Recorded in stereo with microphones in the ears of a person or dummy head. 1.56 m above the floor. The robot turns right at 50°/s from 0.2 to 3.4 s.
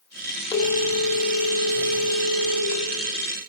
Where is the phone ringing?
15° left, 1.8 m; by 2.8 s 130° left, 1.8 m.